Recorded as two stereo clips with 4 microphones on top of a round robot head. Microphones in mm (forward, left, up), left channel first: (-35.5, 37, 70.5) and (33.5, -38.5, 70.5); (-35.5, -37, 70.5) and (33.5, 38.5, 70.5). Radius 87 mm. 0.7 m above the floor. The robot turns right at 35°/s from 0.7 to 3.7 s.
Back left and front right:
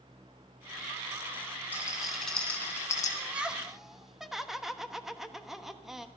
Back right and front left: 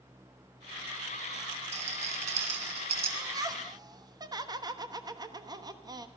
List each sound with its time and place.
1.7 s a rattle: 25° left, 2.5 m; by 3.1 s 75° left, 2.5 m
3.2 s laughter: 20° left, 1.3 m; by 6.1 s 40° left, 1.3 m